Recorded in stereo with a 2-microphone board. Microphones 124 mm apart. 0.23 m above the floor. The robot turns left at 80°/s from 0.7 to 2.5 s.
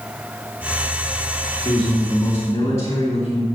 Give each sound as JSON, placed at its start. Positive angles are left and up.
{"t": 1.6, "sound": "a man speaking", "azimuth_deg": 100, "distance_m": 2.5}